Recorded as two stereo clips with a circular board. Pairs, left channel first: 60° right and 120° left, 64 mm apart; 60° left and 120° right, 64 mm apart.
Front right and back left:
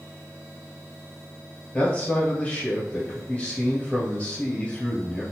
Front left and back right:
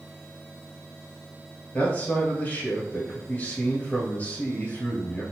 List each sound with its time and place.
1.7 s a man speaking: 5° left, 1.8 m